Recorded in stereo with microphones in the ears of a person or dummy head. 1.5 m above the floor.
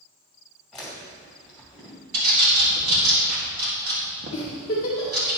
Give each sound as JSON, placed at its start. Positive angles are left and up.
{"t": 0.7, "sound": "chewing", "side_deg": 0, "distance_m": 2.5}
{"t": 2.1, "sound": "a bird", "side_deg": -50, "distance_m": 1.6}
{"t": 4.3, "sound": "a giggle", "side_deg": 25, "distance_m": 1.8}